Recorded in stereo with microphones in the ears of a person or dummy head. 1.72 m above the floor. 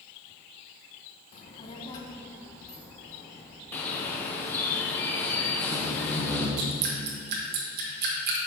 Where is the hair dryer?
I don't hear a hair dryer.